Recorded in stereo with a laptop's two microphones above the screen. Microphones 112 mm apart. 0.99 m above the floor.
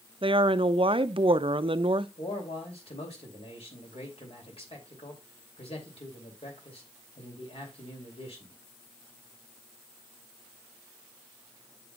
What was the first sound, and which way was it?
A woman speaking, 50° right (ahead or behind).